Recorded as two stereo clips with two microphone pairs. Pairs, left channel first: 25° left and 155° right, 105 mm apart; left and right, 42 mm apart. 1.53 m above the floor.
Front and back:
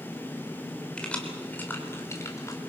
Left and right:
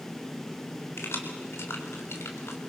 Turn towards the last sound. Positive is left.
turn(degrees=80)